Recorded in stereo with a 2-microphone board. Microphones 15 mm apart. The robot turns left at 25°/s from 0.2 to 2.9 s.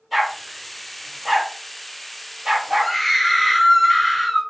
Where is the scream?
20° left (ahead or behind), 1.9 m.